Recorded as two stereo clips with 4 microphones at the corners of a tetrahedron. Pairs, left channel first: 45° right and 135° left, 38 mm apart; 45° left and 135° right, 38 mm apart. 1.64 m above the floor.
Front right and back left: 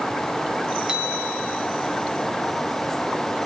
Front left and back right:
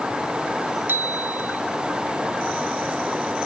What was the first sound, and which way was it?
A bicycle bell, 155° right.